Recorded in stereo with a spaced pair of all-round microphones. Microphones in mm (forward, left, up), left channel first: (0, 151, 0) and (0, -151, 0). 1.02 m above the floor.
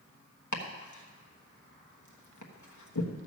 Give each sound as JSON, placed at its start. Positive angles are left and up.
{"t": 0.5, "sound": "chopping", "side_deg": 70, "distance_m": 1.2}